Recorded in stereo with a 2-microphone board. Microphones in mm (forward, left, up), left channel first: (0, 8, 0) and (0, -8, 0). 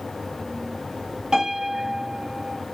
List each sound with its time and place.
1.3 s a piano: 65° right (ahead or behind), 1.3 m